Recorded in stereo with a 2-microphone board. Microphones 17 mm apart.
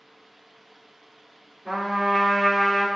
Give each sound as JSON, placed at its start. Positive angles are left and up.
{"t": 1.6, "sound": "a trumpet", "side_deg": -5, "distance_m": 1.4}